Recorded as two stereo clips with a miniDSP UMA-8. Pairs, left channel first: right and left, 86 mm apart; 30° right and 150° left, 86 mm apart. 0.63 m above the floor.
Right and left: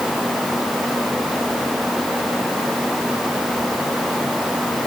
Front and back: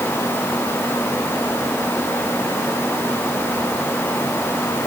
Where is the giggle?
I don't hear a giggle.